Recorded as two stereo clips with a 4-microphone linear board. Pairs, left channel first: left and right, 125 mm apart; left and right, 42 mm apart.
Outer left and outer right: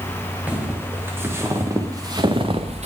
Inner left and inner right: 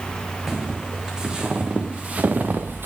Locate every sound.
0.5 s footsteps: 10° right (ahead or behind), 3.5 m; by 2.9 s 60° right (ahead or behind), 1.3 m